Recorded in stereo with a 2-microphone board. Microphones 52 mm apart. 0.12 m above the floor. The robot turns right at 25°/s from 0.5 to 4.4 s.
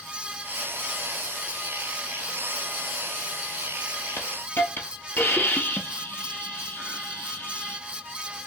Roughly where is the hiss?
Left.